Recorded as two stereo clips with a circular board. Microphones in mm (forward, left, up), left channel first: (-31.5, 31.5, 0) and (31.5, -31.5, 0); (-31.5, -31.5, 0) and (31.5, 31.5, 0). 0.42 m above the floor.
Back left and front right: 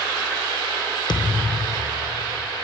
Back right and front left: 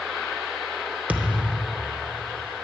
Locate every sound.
1.1 s a thud: 115° left, 0.8 m